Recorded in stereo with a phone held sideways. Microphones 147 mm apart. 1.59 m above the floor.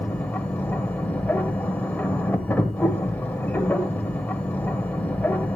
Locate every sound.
0.0 s a machine running: 10° left (ahead or behind), 1.1 m